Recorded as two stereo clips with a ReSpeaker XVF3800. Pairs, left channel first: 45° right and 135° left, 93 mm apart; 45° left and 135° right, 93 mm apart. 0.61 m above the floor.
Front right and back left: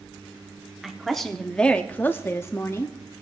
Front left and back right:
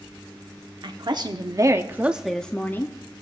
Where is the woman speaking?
135° right, 1.1 m; by 3.0 s straight ahead, 0.9 m.